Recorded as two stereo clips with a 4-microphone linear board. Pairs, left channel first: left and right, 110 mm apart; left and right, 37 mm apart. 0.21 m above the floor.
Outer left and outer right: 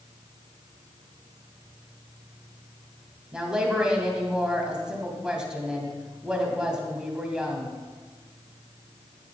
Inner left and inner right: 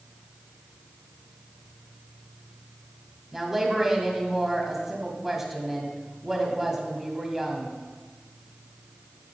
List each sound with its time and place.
3.3 s a woman speaking: 5° right (ahead or behind), 1.0 m